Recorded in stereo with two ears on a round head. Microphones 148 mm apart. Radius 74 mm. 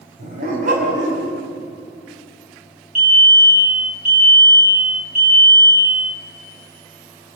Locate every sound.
0.2 s a dog barking: 50° right (ahead or behind), 5 m
3.0 s a fire alarm: 5° left (ahead or behind), 6.5 m